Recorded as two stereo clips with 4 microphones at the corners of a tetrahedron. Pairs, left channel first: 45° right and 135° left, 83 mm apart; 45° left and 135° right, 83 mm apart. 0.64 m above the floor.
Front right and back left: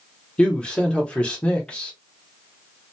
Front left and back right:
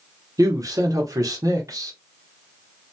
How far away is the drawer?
No drawer in this recording.